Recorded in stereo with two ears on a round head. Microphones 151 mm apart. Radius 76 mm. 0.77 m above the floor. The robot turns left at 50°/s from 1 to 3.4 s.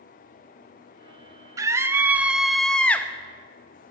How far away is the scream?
About 0.6 m.